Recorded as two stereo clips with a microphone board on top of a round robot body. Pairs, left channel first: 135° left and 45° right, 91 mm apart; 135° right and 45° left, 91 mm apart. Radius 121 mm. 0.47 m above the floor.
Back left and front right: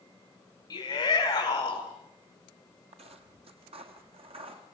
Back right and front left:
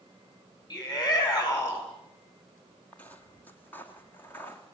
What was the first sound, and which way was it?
A shout, straight behind.